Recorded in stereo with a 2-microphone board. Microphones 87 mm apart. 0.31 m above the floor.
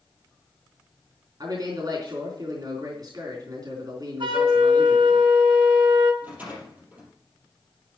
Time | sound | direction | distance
1.4 | a man speaking | 50° right (ahead or behind) | 3.5 m
4.2 | a flute | 70° right (ahead or behind) | 2.5 m
6.2 | a rattle | 20° right (ahead or behind) | 5 m